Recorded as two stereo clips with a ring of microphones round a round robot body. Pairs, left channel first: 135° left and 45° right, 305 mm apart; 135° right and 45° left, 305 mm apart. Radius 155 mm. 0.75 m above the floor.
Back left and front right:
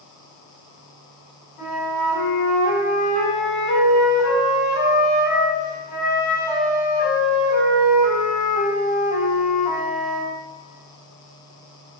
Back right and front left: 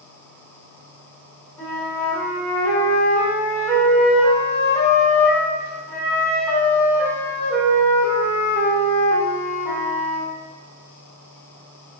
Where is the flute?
140° left, 1.3 m.